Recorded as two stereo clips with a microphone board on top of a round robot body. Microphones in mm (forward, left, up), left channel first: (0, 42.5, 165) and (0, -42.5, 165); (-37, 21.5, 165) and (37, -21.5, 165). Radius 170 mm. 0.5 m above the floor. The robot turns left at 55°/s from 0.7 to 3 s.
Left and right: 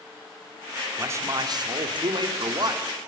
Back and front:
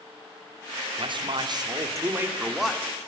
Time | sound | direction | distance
1.0 | a man speaking | 30° right | 2.5 m